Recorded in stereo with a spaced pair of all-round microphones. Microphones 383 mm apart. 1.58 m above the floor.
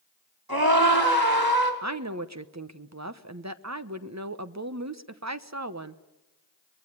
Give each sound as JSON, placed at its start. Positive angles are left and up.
{"t": 0.5, "sound": "a scream", "side_deg": -70, "distance_m": 5.0}
{"t": 1.8, "sound": "a woman speaking", "side_deg": -45, "distance_m": 1.1}